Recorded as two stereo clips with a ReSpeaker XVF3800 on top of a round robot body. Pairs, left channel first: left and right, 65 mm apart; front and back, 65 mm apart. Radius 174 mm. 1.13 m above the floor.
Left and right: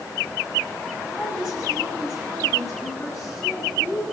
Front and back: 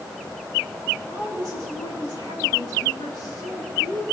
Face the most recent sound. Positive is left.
turn(degrees=-5)